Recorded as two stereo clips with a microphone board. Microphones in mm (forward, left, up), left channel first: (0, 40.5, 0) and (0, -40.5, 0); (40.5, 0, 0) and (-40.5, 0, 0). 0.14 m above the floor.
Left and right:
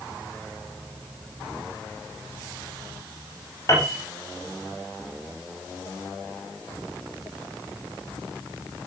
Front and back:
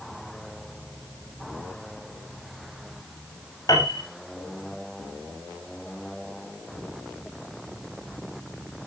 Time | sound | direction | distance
3.7 | a piano | 40° left | 7 m